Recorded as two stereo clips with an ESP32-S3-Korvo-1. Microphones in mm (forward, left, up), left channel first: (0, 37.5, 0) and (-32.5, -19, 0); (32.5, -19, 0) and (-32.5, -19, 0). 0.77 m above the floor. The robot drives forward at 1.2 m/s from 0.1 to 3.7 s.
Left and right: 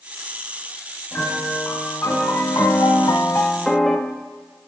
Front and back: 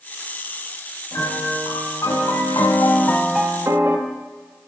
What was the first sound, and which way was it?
A piano, 10° left.